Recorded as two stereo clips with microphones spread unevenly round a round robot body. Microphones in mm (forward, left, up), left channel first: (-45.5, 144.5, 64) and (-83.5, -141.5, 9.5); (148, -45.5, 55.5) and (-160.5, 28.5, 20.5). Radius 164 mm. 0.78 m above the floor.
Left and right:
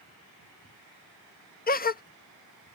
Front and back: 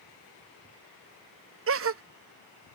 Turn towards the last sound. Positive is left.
turn(degrees=145)